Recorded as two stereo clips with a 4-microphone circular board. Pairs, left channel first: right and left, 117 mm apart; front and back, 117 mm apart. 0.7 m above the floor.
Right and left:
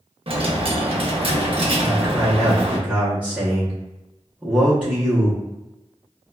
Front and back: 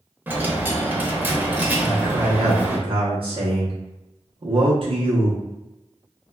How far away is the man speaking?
About 0.8 m.